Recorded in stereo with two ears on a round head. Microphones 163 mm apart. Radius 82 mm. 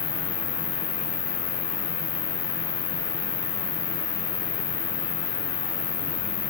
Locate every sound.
0.0 s an insect: 40° left (ahead or behind)